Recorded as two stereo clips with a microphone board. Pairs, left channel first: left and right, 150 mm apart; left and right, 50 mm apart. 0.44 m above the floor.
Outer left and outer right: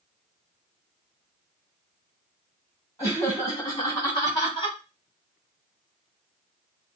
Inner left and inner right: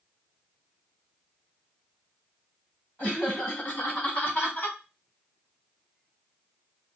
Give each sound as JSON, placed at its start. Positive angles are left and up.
{"t": 3.0, "sound": "laughter", "side_deg": 25, "distance_m": 3.5}